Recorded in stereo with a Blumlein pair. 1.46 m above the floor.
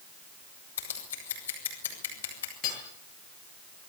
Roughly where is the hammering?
Ahead left.